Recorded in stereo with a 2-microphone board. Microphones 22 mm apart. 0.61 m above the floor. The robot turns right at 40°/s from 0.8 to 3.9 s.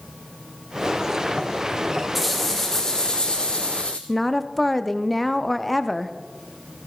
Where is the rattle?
Straight ahead, 1.9 m; by 4.0 s 70° left, 1.9 m.